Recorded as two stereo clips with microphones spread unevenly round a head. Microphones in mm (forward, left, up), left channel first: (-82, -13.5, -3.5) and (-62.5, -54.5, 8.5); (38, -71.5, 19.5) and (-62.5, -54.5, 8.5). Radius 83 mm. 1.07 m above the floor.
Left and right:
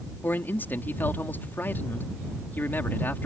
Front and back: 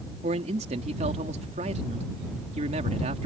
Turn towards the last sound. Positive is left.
turn(degrees=160)